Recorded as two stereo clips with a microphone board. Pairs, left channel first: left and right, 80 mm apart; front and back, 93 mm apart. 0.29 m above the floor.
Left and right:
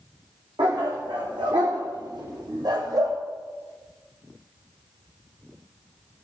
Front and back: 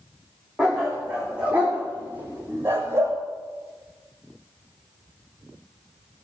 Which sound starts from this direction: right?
A dog barking, at 0.6 s.